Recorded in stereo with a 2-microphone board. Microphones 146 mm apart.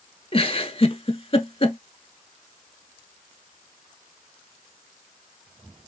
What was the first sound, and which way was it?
A giggle, 40° left (ahead or behind).